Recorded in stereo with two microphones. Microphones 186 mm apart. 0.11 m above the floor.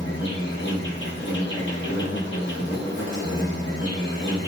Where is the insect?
80° left, 0.9 m.